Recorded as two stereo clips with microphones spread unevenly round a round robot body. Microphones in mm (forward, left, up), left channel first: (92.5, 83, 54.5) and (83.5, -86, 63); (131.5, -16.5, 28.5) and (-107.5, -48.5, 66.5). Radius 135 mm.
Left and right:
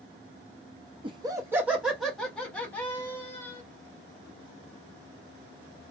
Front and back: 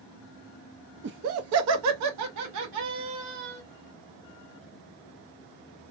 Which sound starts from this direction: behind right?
Laughter, at 1.0 s.